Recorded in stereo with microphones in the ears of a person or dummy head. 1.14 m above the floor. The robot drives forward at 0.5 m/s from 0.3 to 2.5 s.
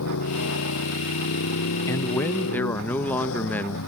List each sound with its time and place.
0.0 s a motorcycle: 80° left; by 3.9 s 75° left (ahead or behind)
1.9 s a man speaking: 15° left (ahead or behind); by 3.8 s 10° left (ahead or behind)